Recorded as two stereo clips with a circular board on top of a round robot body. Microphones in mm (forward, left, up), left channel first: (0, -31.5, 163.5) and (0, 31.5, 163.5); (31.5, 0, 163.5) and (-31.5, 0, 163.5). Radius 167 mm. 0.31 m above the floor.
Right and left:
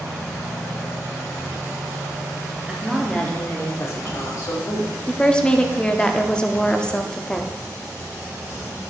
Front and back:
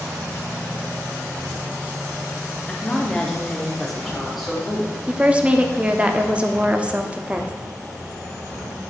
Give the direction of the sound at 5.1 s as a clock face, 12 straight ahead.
5 o'clock.